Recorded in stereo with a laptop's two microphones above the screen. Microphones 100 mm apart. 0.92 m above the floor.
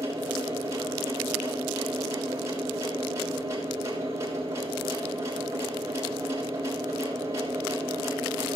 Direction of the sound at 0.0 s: 35° right (ahead or behind).